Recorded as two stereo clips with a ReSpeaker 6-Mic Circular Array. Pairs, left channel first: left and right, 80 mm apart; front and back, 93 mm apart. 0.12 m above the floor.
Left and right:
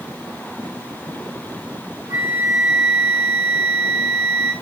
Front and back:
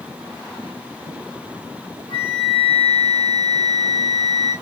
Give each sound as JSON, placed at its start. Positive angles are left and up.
{"t": 2.1, "sound": "a flute", "azimuth_deg": -25, "distance_m": 6.0}